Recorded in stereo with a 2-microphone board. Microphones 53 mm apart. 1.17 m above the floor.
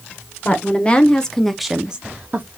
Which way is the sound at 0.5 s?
30° left (ahead or behind).